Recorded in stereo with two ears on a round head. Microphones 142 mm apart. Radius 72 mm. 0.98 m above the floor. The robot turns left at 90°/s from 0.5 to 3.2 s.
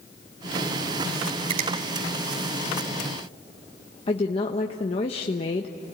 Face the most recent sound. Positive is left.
turn(degrees=40)  # may be behind; listen again after turning